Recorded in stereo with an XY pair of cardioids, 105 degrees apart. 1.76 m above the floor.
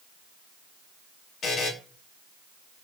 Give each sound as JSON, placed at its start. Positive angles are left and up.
{"t": 1.4, "sound": "a buzzer", "azimuth_deg": 60, "distance_m": 0.7}